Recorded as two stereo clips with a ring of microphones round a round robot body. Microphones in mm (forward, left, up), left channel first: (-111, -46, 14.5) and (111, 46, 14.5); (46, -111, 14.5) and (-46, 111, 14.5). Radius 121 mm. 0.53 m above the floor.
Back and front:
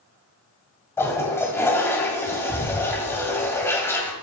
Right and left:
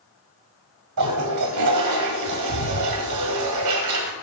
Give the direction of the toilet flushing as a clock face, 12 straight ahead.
8 o'clock.